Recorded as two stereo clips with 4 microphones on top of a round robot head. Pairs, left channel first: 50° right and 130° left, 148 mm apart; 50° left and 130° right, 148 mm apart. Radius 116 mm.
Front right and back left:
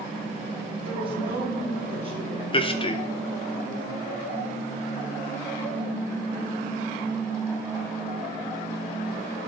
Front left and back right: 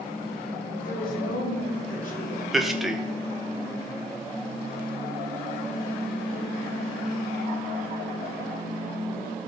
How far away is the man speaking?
About 0.7 m.